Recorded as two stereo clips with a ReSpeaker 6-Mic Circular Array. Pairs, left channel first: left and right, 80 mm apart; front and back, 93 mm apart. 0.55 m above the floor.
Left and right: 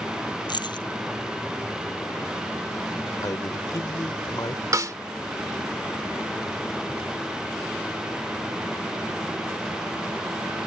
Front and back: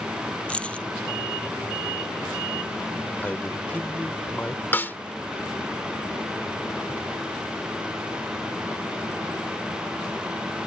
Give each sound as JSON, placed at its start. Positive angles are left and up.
{"t": 0.5, "sound": "keys jangling", "azimuth_deg": 75}
{"t": 3.2, "sound": "a man speaking", "azimuth_deg": 65}
{"t": 4.7, "sound": "a snare drum", "azimuth_deg": -60}